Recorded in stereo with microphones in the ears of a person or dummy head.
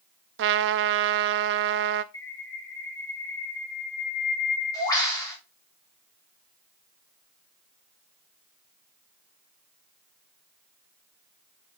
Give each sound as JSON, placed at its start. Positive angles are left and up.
{"t": 0.4, "sound": "a trumpet", "side_deg": -60, "distance_m": 0.7}
{"t": 2.1, "sound": "a bird", "side_deg": 20, "distance_m": 4.5}